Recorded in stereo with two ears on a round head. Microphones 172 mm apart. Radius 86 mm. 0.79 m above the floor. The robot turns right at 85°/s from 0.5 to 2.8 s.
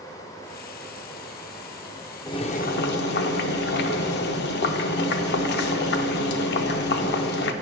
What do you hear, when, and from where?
2.3 s boiling: 20° left, 0.6 m; by 7.5 s 70° left, 0.6 m